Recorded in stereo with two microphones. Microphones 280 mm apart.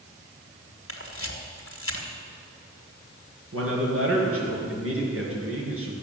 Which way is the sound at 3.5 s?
55° right (ahead or behind).